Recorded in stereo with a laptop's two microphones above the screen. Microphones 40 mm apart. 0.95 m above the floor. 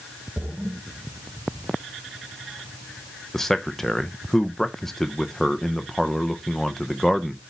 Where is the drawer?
I don't hear a drawer.